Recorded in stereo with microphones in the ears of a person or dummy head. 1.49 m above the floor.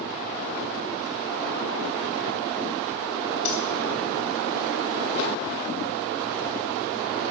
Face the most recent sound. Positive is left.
turn(degrees=45)  # may be behind; listen again after turning